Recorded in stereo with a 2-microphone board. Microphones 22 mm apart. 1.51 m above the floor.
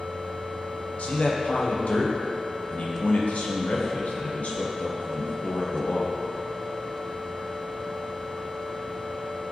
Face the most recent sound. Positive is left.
turn(degrees=75)  # may be behind; listen again after turning